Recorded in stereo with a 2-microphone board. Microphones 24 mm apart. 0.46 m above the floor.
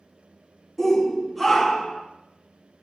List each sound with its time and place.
0.8 s a shout: centre (ahead or behind), 0.8 m; by 2.0 s 5° right (ahead or behind), 0.8 m